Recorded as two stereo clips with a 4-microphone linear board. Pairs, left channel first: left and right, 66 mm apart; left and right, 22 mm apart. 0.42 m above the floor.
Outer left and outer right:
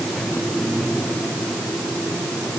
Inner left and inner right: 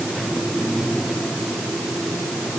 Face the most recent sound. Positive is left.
No sound to turn to.